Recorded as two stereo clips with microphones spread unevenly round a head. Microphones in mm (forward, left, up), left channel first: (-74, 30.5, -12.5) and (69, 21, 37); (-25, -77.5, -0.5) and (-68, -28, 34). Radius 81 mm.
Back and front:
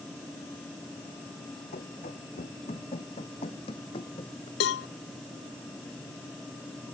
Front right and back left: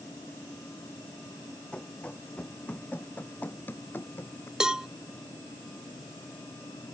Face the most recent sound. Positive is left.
turn(degrees=-160)